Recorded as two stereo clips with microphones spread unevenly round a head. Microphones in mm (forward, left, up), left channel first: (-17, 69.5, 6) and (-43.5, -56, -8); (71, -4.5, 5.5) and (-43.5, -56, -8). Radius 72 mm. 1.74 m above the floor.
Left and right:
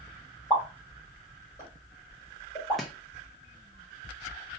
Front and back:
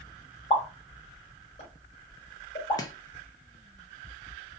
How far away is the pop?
About 1.8 m.